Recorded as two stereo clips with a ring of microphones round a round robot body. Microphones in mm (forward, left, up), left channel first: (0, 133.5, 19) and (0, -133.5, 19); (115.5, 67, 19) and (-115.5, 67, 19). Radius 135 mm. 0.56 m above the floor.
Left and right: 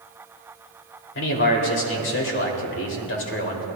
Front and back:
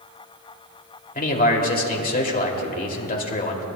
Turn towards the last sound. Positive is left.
turn(degrees=50)